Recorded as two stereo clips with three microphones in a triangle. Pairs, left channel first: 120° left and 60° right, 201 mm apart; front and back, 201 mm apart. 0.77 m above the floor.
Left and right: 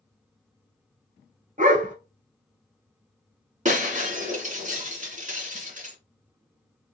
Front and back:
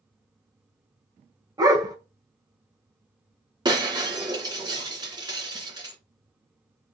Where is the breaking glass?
110° right, 2 m.